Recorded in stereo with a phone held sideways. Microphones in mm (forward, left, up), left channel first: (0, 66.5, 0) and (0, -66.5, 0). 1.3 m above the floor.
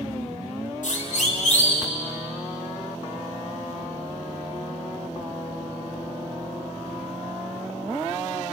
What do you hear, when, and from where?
0.8 s a siren: 70° left (ahead or behind), 3.5 m; by 1.9 s 55° left (ahead or behind), 4 m